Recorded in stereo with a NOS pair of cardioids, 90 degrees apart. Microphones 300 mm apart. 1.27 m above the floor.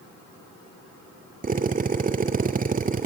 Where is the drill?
25° right, 2.5 m.